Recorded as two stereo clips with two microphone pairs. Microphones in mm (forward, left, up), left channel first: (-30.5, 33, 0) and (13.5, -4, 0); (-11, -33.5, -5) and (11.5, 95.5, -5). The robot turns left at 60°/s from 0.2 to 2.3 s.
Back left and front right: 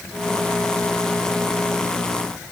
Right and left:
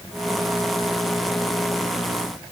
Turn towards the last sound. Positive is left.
No sound to turn to.